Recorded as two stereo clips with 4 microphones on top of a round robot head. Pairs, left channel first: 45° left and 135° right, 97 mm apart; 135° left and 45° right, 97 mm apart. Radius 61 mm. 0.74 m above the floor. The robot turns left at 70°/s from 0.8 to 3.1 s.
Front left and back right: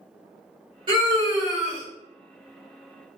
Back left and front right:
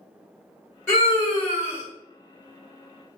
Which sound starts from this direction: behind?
A scream, at 0.9 s.